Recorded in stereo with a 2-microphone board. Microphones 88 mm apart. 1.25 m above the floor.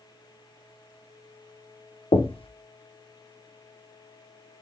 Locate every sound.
2.1 s knocking: 80° left, 0.6 m